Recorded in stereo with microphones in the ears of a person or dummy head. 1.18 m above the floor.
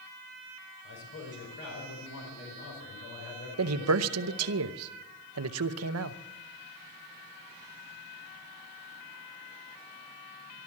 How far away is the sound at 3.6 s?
About 0.7 m.